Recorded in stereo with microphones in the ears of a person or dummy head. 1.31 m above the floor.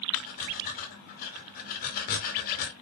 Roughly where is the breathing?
Left.